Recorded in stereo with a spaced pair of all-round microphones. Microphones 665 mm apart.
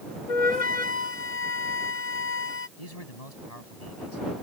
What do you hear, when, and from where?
0.3 s a flute: 60° left (ahead or behind)
2.8 s a man speaking: 70° left (ahead or behind)